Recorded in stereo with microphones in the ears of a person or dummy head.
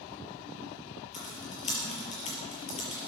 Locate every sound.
1.1 s typing on a keyboard: 40° left (ahead or behind), 4.5 m